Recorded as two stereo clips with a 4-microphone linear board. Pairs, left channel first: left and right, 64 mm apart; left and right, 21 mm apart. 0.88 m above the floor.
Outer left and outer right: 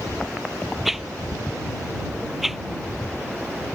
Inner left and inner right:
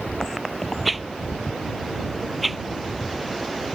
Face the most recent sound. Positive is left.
turn(degrees=0)  # may be behind; listen again after turning